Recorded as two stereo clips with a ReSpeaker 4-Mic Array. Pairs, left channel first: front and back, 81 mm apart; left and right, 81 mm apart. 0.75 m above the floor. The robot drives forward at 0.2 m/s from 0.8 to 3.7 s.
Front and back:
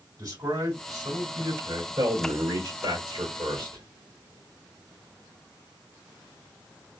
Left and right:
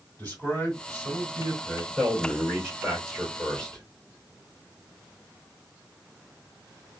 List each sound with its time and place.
0.2 s a man speaking: 155° left, 2.5 m; by 1.9 s 160° left, 2.5 m
2.0 s a man speaking: 170° left, 2.5 m; by 3.8 s 175° left, 2.5 m